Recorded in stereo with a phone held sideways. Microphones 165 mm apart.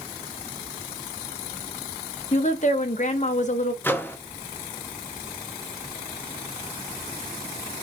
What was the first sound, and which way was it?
A woman speaking, 50° left (ahead or behind).